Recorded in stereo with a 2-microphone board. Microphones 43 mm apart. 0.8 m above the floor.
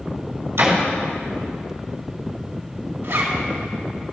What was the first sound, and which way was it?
A door slam, 80° right.